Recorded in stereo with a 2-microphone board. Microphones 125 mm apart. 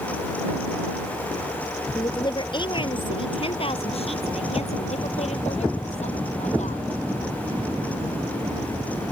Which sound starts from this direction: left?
A woman speaking, at 1.9 s.